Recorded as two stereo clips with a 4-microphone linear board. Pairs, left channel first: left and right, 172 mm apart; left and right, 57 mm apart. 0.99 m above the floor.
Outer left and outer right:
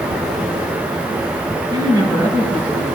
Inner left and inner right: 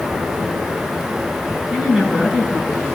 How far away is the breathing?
I don't hear breathing.